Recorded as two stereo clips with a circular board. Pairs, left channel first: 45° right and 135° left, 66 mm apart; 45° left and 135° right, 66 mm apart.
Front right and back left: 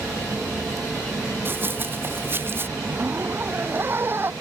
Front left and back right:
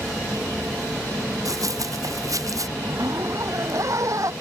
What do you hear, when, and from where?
1.4 s running footsteps: 170° right
2.8 s a zipper: 170° right